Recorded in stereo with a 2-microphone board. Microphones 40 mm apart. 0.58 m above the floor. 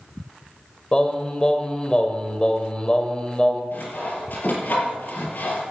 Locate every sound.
0.9 s singing: 25° left (ahead or behind), 1.5 m
3.7 s sawing: 45° left (ahead or behind), 5.5 m